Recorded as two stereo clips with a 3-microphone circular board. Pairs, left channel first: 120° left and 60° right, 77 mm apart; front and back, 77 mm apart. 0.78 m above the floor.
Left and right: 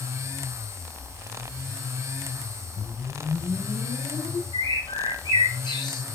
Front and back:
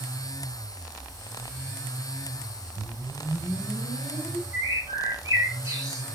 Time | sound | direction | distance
2.8 | a whoosh | 130° left | 4 m
4.5 | a bird | 135° left | 3 m